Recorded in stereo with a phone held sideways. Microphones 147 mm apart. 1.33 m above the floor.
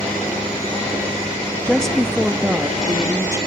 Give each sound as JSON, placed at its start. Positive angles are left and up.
{"t": 1.6, "sound": "a woman speaking", "side_deg": 10, "distance_m": 1.5}